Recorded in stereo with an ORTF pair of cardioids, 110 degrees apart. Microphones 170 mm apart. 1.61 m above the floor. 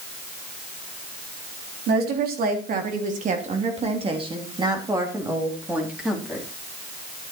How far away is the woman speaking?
About 4 m.